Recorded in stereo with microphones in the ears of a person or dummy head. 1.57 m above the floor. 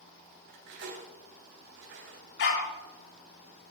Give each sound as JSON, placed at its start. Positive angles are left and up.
{"t": 0.5, "sound": "cutlery clinking", "side_deg": -65, "distance_m": 3.5}
{"t": 2.4, "sound": "a dog barking", "side_deg": 70, "distance_m": 3.5}